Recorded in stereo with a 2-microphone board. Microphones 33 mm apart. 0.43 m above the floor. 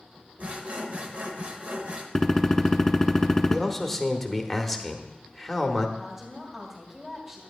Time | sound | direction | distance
0.4 | sawing | 45° right (ahead or behind) | 1.0 m
2.1 | a gunshot | 10° left (ahead or behind) | 0.7 m
3.5 | a man speaking | 5° left (ahead or behind) | 1.0 m
6.0 | a woman speaking | 15° right (ahead or behind) | 2.0 m